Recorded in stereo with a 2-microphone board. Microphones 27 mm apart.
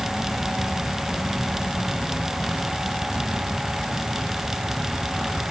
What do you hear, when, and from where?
Only background noise.